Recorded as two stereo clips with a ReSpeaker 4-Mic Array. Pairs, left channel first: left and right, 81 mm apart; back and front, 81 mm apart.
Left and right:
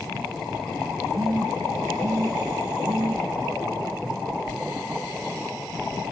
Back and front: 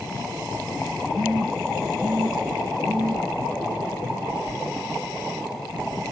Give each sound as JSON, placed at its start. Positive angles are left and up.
{"t": 1.1, "sound": "a phone buzzing", "azimuth_deg": -35, "distance_m": 7.0}